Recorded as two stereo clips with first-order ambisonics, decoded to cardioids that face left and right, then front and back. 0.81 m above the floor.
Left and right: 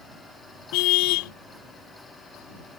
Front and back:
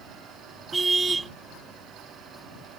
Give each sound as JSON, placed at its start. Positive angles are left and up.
{"t": 0.7, "sound": "a car horn", "azimuth_deg": 100}